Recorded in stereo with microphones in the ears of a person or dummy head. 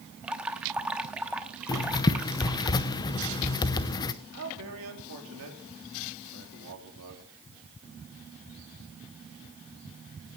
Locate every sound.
0.2 s dripping: 10° right (ahead or behind), 0.9 m
1.7 s writing: 20° left (ahead or behind), 0.7 m
4.3 s a man speaking: 75° right (ahead or behind), 4 m